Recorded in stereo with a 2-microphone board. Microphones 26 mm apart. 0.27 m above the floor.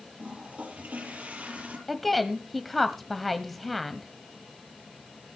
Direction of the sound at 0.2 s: 70° right (ahead or behind).